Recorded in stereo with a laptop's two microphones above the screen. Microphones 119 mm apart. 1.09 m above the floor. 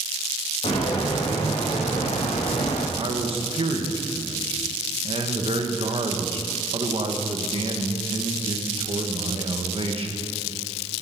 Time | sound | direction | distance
0.6 | footsteps | 50° left (ahead or behind) | 3.5 m
3.0 | a man speaking | 55° right (ahead or behind) | 1.2 m